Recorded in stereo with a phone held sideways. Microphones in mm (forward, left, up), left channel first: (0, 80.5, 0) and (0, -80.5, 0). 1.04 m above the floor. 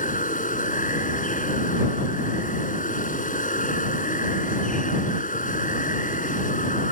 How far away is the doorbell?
No doorbell in this recording.